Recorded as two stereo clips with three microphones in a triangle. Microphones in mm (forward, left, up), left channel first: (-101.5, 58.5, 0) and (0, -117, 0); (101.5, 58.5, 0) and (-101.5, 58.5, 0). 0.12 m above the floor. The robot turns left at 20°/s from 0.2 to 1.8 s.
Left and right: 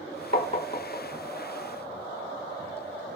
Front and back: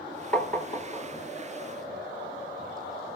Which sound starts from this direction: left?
Tapping, at 0.3 s.